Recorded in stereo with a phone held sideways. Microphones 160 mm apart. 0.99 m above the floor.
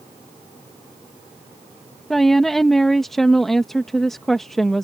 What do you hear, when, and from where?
2.1 s a woman speaking: centre (ahead or behind)